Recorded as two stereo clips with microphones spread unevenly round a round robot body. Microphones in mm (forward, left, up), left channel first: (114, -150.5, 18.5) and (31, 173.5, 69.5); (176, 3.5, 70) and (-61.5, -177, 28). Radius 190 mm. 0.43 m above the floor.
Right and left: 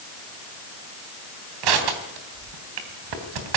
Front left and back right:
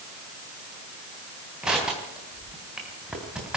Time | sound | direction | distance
1.6 | crushing | 130° left | 3 m